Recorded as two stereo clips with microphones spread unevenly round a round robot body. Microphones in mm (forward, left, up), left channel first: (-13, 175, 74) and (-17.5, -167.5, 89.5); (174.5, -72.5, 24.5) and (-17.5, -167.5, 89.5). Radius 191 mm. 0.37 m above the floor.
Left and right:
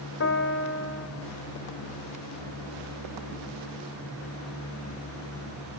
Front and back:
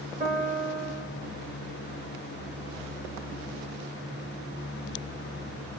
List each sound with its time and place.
0.2 s a piano: 135° left, 1.3 m